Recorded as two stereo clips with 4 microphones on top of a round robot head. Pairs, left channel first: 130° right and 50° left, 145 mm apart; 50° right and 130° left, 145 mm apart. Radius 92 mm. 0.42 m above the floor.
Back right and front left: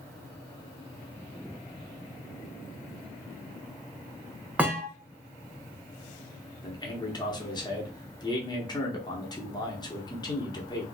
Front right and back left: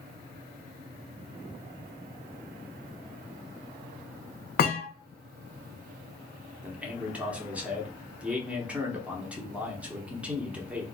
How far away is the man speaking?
About 0.9 m.